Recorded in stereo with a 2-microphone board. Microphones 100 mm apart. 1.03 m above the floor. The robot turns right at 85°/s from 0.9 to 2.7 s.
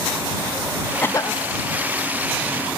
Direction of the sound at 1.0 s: 20° left.